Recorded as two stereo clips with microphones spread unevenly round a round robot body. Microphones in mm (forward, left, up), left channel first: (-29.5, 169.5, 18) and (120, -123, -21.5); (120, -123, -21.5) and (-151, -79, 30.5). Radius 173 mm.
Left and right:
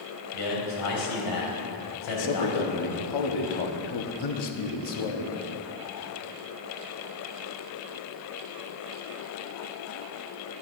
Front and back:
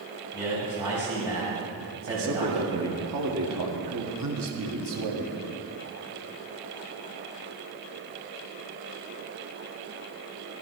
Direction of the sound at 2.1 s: 130° left.